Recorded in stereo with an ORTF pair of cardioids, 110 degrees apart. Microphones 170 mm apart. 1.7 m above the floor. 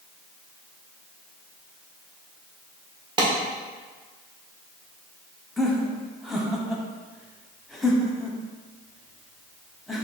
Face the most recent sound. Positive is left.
turn(degrees=0)